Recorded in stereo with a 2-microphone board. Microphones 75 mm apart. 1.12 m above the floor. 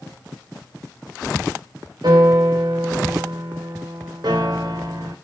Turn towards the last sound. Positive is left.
turn(degrees=-70)  # may be behind; listen again after turning